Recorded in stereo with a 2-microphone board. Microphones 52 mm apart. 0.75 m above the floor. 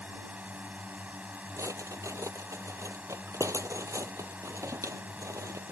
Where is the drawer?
70° right (ahead or behind).